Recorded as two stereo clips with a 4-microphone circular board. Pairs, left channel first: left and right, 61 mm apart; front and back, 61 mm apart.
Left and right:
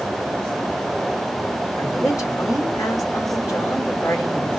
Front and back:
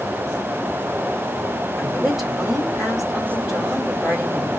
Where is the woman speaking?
95° left, 3 m.